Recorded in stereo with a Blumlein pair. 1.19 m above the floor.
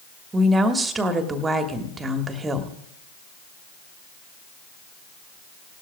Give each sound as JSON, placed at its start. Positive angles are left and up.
{"t": 0.3, "sound": "a woman speaking", "azimuth_deg": -15, "distance_m": 1.5}